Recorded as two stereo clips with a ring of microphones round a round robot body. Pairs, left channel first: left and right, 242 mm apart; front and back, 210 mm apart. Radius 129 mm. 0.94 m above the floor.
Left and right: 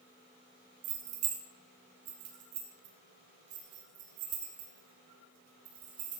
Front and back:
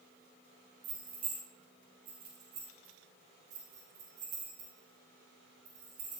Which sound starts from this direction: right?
Keys jangling, at 0.8 s.